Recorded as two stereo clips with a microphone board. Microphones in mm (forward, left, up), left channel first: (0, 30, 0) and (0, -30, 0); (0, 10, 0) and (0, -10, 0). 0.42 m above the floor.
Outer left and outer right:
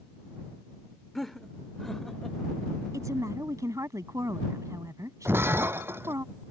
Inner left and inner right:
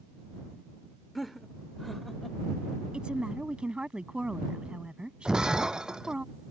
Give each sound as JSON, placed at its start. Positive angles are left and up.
{"t": 1.1, "sound": "laughter", "side_deg": 5}
{"t": 2.9, "sound": "a woman speaking", "side_deg": -65}
{"t": 5.2, "sound": "breaking glass", "side_deg": -40}